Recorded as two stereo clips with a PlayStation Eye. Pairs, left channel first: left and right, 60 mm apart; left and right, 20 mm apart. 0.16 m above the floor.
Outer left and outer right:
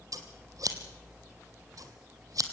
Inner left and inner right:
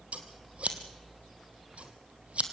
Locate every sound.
0.1 s scissors: 70° right (ahead or behind), 1.6 m